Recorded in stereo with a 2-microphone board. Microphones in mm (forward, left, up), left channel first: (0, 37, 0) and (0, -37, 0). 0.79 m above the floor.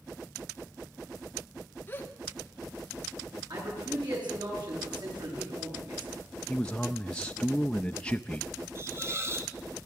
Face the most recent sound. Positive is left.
turn(degrees=-35)  # may be behind; listen again after turning